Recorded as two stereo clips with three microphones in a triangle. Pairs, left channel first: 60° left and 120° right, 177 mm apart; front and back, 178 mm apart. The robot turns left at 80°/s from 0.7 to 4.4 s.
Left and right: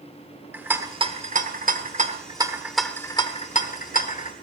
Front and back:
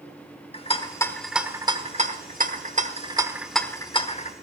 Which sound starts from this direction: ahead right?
A rattle, at 0.5 s.